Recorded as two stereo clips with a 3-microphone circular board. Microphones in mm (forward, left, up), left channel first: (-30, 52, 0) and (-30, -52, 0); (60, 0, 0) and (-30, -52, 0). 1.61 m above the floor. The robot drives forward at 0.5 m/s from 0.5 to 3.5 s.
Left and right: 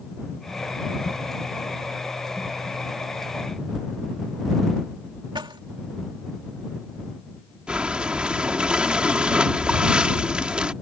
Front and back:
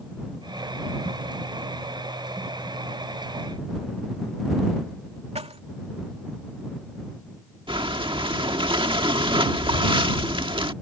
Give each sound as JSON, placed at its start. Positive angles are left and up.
{"t": 5.3, "sound": "keys jangling", "azimuth_deg": -130}
{"t": 7.7, "sound": "breathing", "azimuth_deg": -170}